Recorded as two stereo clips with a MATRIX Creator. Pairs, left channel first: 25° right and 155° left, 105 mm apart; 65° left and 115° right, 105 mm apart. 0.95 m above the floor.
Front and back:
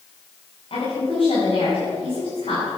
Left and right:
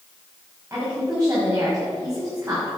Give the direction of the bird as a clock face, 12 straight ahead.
No bird in this recording.